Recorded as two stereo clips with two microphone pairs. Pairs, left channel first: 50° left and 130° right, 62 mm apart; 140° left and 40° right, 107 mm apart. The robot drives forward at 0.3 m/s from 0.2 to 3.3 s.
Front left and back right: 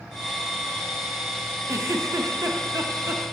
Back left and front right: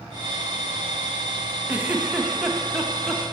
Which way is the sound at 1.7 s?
110° right.